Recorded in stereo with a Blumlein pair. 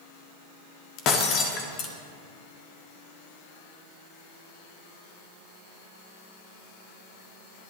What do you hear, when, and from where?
1.0 s breaking glass: 35° left, 1.6 m